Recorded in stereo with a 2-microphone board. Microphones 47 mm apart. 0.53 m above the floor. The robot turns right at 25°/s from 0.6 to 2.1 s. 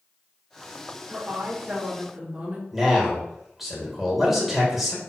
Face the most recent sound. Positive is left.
turn(degrees=-5)  # may be behind; listen again after turning